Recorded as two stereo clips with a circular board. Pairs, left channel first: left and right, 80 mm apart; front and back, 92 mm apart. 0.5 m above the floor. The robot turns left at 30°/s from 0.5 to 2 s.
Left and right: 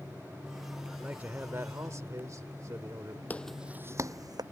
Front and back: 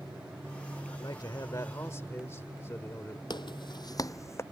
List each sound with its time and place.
0.9 s a man speaking: 20° right; by 3.2 s 55° right
3.3 s footsteps: 25° left; by 4.4 s 60° right